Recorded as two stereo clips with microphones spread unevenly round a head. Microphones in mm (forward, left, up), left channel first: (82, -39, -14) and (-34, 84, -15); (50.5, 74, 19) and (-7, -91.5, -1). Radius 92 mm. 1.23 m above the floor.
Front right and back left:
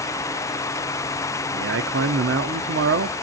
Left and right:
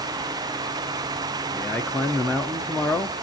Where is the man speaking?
155° left, 0.6 m.